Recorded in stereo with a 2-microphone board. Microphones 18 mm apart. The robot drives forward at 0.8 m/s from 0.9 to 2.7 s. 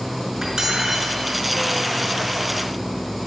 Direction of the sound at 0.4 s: 35° right (ahead or behind).